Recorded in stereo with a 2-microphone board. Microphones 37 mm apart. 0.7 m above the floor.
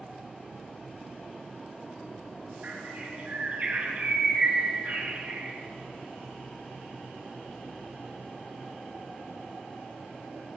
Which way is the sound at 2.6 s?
45° right (ahead or behind).